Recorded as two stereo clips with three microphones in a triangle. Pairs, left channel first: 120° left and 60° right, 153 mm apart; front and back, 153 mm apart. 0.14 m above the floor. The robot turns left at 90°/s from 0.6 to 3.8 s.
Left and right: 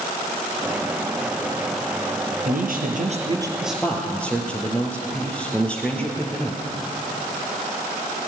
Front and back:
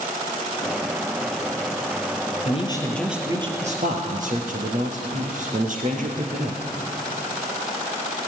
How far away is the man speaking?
About 2.5 m.